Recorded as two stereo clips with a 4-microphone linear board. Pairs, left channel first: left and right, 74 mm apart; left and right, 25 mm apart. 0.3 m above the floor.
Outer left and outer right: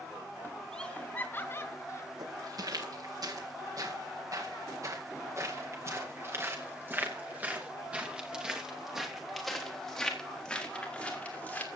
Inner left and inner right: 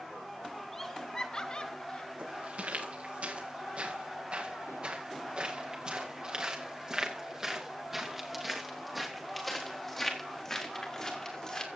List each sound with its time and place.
0.7 s laughter: 10° left (ahead or behind), 1.1 m; by 2.1 s 40° left (ahead or behind), 1.9 m
2.2 s footsteps: 65° right (ahead or behind), 7 m; by 11.7 s 25° left (ahead or behind), 5.5 m